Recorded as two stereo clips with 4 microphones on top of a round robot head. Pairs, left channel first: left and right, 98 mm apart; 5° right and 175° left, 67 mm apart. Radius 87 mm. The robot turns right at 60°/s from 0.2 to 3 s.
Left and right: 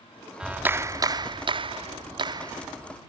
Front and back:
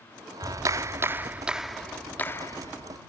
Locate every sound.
0.4 s a clap: 170° right; by 3.0 s 15° right